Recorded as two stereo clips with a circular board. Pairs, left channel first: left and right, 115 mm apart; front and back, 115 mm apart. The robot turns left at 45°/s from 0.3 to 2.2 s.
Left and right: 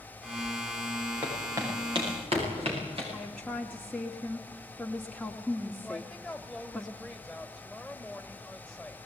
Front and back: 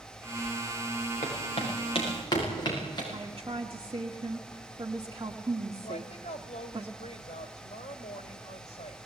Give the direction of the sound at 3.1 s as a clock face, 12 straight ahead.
6 o'clock.